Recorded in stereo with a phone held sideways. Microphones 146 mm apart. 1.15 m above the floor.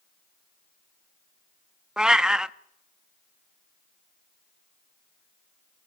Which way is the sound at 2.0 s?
5° right (ahead or behind).